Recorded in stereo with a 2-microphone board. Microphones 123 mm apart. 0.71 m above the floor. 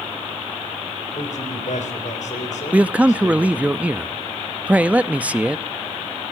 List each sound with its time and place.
1.1 s a man speaking: 75° left (ahead or behind), 3.5 m
2.7 s a man speaking: 10° right (ahead or behind), 0.6 m